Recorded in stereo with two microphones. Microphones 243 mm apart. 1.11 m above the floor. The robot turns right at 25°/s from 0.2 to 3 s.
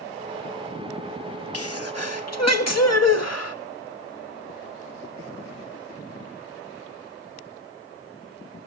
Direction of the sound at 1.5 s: 65° left.